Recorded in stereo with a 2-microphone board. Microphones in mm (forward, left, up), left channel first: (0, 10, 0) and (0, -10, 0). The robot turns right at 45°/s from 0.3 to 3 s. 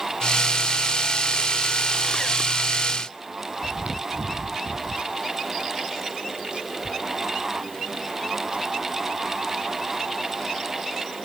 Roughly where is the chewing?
Right.